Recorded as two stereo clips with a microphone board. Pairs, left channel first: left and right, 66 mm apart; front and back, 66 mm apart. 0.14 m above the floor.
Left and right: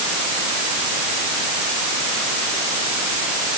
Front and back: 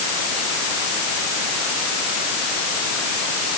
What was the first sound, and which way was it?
Only background noise.